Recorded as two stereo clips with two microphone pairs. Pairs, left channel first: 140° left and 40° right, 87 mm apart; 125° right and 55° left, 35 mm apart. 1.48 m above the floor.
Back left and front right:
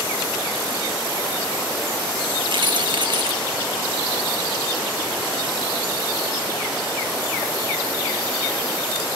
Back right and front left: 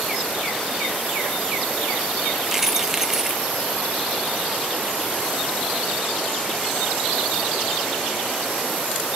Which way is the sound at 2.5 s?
25° right.